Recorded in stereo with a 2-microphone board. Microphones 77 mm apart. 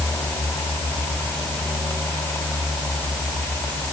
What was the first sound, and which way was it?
Only background noise.